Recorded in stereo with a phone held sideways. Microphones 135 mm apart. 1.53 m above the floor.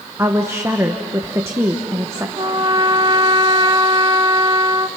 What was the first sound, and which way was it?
A woman speaking, 20° right (ahead or behind).